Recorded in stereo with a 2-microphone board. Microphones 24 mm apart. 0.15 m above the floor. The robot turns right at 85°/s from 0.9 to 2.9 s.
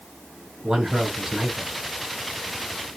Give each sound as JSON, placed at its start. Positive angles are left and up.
{"t": 0.6, "sound": "a man speaking", "azimuth_deg": -85, "distance_m": 1.5}